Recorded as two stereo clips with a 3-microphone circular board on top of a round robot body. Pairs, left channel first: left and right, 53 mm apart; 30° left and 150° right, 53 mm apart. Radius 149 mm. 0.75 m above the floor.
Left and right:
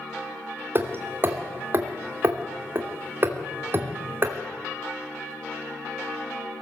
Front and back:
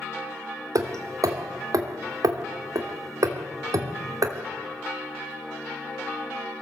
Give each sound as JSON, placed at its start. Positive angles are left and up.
{"t": 0.8, "sound": "hammering", "azimuth_deg": -140, "distance_m": 3.0}